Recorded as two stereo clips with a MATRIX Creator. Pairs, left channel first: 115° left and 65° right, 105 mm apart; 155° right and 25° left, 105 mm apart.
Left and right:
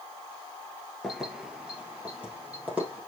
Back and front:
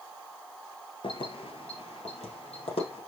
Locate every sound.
1.0 s keys jangling: 155° right, 1.3 m; by 3.0 s 145° right, 3.5 m